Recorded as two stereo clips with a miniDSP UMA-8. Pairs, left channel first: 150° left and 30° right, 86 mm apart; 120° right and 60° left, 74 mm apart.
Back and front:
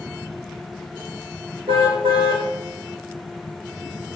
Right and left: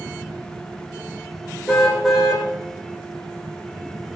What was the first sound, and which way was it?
A car horn, 35° right.